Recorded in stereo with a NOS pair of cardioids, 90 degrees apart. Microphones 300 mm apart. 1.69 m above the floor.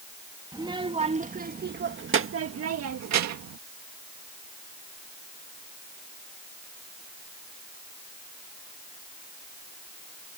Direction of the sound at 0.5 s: 15° right.